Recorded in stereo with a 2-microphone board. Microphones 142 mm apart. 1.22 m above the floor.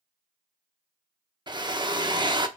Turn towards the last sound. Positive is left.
turn(degrees=-30)  # may be behind; listen again after turning